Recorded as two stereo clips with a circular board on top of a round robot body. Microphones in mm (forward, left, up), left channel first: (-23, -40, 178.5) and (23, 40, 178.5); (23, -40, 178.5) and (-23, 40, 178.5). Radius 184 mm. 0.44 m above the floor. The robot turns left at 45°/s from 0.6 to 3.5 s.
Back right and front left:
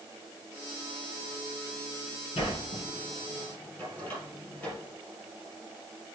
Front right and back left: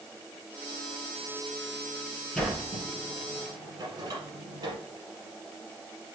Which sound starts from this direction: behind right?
A sliding door, at 2.4 s.